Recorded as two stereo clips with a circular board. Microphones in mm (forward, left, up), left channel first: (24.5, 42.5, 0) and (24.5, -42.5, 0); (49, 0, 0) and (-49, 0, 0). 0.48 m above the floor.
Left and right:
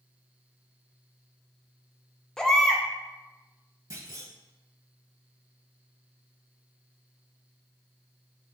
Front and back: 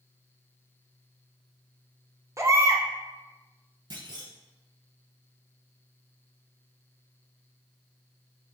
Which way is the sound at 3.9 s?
140° right.